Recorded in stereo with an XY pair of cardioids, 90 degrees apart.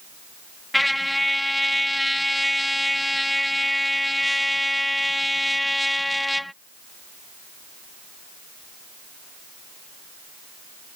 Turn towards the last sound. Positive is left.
turn(degrees=10)